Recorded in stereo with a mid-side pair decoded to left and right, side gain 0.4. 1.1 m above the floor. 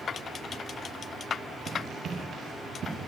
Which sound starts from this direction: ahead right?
Running footsteps, at 1.7 s.